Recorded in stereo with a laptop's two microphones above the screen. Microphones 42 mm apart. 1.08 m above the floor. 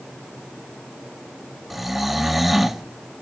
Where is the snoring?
5° right (ahead or behind), 0.6 m.